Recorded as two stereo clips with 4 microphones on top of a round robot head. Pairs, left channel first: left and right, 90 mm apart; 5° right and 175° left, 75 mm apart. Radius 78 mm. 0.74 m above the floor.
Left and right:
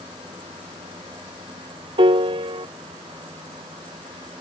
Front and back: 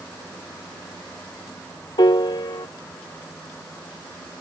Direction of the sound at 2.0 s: 50° right.